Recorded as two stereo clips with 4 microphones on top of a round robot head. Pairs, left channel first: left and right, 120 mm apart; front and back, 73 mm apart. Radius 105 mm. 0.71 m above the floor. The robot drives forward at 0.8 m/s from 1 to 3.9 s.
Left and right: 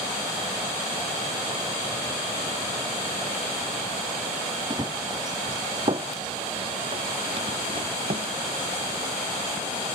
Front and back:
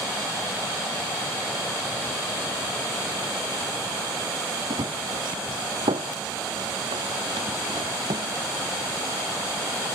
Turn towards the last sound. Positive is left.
turn(degrees=-135)